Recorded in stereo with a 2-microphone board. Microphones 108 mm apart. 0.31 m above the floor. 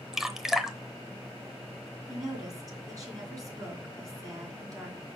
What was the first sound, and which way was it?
Dripping, 5° right (ahead or behind).